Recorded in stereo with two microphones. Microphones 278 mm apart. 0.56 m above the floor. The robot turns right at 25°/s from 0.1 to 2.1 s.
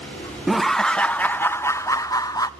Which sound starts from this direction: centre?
Laughter, at 0.5 s.